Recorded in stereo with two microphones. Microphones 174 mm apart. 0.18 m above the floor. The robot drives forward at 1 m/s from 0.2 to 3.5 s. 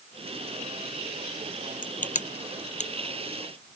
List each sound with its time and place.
1.8 s crushing: 50° left (ahead or behind); by 3.8 s 40° left (ahead or behind)